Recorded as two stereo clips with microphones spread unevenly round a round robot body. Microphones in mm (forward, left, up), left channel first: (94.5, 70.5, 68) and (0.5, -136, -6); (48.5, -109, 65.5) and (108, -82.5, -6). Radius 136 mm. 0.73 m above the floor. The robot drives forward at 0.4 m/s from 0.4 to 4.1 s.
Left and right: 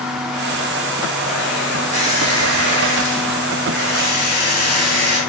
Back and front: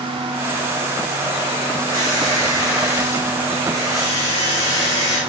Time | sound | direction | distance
1.9 | a squeak | straight behind | 1.6 m